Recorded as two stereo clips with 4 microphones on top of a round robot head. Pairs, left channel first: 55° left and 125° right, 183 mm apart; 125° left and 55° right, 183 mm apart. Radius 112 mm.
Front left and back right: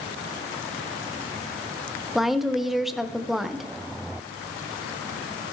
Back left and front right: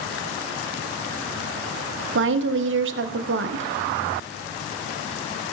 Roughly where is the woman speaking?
Ahead right.